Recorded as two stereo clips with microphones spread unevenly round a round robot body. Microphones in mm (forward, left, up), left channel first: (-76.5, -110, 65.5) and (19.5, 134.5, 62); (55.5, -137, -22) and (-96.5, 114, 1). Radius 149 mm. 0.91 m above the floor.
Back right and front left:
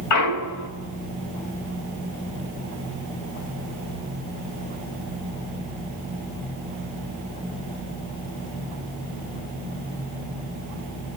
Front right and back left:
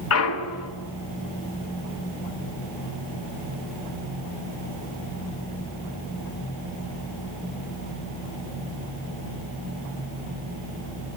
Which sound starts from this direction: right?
A clunk, at 0.1 s.